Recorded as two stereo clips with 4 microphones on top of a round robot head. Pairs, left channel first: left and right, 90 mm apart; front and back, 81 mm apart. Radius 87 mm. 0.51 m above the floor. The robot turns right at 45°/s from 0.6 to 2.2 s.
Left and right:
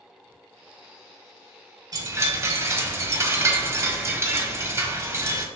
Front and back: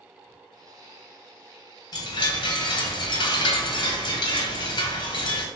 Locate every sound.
1.9 s a chime: 45° right, 1.0 m; by 5.5 s 30° right, 1.0 m